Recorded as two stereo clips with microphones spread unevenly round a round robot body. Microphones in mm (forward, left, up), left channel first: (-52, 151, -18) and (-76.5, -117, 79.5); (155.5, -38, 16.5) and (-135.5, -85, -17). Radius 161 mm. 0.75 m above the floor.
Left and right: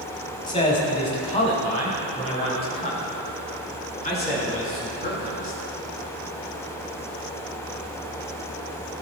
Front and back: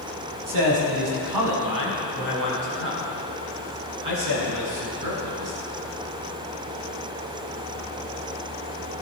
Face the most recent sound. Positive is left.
turn(degrees=145)